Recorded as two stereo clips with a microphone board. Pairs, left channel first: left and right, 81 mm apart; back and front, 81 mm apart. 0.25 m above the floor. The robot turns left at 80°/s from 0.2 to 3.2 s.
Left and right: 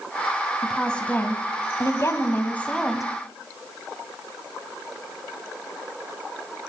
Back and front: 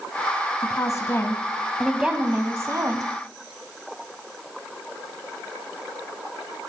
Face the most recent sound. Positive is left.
turn(degrees=-20)